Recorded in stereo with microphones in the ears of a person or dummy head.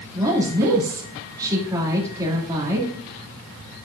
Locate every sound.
0.1 s a woman speaking: 20° right (ahead or behind), 2.5 m